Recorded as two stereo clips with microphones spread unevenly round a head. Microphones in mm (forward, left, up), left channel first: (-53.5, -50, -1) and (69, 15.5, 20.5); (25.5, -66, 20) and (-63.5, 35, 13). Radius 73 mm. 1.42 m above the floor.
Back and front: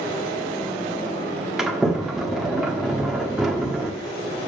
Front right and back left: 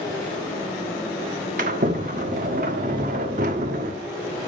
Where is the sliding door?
110° left, 1.3 m.